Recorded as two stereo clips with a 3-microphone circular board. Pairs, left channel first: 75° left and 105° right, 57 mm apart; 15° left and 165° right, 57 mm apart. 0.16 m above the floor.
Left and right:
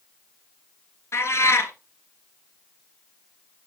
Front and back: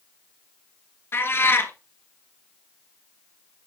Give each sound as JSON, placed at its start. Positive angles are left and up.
{"t": 1.1, "sound": "a cat meowing", "azimuth_deg": 50, "distance_m": 1.4}